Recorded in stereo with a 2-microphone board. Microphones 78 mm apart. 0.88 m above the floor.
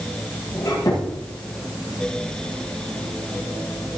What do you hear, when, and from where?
0.6 s a squeak: 45° left (ahead or behind), 8 m